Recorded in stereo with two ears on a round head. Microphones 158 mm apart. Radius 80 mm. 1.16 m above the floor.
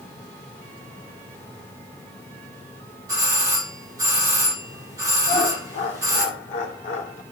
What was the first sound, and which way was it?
A doorbell, 20° right (ahead or behind).